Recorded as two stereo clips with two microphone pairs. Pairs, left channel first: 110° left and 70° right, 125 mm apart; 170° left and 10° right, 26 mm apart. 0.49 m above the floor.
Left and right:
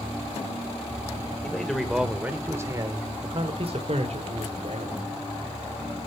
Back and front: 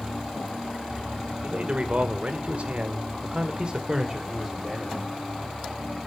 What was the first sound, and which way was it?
A man speaking, 25° left.